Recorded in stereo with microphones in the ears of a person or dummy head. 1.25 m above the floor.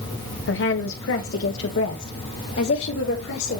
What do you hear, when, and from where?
0.5 s a woman speaking: 60° left (ahead or behind), 0.8 m; by 3.6 s 75° left (ahead or behind), 2 m